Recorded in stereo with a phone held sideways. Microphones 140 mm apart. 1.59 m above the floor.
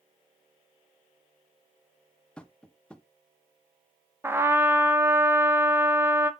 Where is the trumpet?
15° right (ahead or behind), 0.6 m.